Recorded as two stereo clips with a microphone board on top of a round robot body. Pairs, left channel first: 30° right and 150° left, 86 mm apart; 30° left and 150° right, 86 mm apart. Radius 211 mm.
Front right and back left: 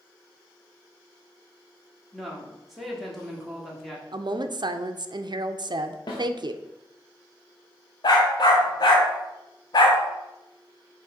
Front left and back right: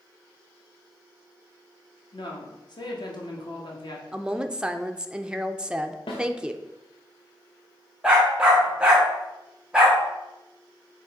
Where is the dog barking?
70° right, 0.8 m.